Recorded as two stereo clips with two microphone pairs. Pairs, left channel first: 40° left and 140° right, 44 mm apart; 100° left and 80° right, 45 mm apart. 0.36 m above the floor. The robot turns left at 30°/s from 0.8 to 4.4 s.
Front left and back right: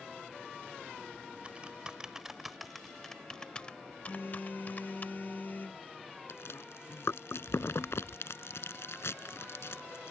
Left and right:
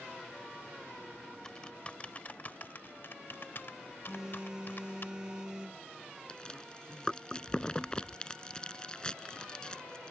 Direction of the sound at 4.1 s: 5° left.